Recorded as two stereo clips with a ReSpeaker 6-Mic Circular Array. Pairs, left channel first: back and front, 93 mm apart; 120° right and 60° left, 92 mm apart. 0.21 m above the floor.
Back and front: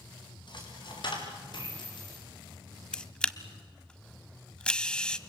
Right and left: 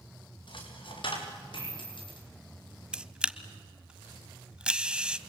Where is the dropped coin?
145° right, 5.5 m.